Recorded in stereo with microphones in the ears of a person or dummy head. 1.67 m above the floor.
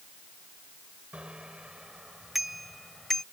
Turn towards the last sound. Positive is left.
turn(degrees=0)  # may be behind; listen again after turning